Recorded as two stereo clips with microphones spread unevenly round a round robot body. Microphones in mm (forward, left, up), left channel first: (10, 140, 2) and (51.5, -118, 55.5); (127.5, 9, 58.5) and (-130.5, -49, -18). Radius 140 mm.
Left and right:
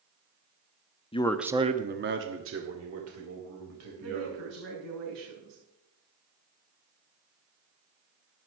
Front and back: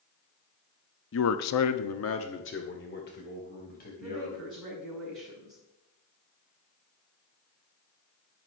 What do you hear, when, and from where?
1.1 s a man speaking: 55° left, 0.9 m; by 4.7 s 50° right, 4.5 m
4.0 s a woman speaking: 80° right, 6 m